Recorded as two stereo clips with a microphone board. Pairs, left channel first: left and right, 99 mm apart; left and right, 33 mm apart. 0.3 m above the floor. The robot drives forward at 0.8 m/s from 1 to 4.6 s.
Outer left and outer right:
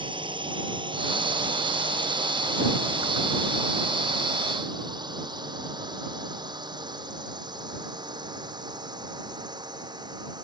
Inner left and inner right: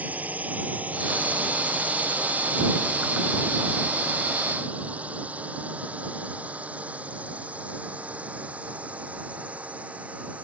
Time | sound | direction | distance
0.0 | a drone | 55° right (ahead or behind) | ?